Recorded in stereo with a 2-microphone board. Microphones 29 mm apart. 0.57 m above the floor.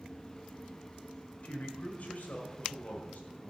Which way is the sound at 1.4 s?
60° left (ahead or behind).